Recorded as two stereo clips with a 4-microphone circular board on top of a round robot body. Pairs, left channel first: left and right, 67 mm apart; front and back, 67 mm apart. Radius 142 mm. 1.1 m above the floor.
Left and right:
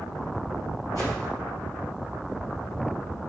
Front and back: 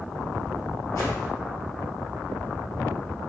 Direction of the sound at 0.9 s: 50° left.